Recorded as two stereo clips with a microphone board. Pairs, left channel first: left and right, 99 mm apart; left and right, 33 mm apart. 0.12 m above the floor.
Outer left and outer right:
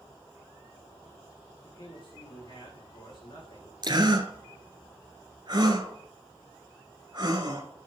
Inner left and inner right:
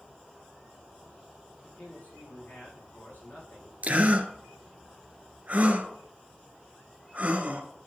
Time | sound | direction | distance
1.6 | a man speaking | 55° left (ahead or behind) | 6.5 m
3.8 | a gasp | 50° right (ahead or behind) | 1.4 m